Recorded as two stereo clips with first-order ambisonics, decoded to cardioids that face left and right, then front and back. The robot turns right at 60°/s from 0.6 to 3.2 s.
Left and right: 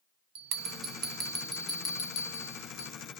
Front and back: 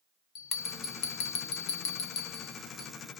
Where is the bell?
60° right, 0.9 m; by 2.9 s 80° left, 0.9 m.